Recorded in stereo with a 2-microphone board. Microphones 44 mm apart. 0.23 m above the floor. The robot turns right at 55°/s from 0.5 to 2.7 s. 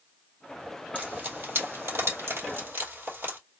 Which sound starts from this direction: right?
Frying, at 0.9 s.